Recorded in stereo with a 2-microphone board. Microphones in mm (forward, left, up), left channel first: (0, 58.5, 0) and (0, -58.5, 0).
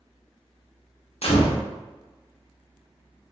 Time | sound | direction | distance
1.2 | a gunshot | 70° left (ahead or behind) | 0.7 m